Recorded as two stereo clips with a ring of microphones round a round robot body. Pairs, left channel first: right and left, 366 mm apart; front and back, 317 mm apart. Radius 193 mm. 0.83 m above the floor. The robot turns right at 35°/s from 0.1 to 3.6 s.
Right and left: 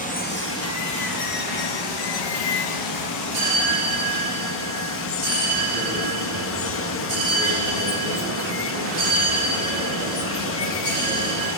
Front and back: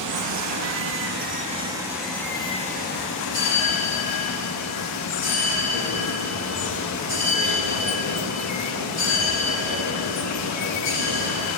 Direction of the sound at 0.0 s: 160° right.